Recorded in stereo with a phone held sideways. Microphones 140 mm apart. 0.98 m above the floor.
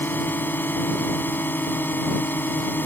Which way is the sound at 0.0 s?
15° left (ahead or behind).